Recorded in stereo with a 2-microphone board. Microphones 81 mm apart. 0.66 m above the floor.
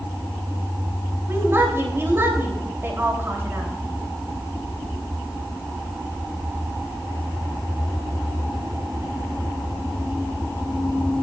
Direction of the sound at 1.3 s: 30° right (ahead or behind).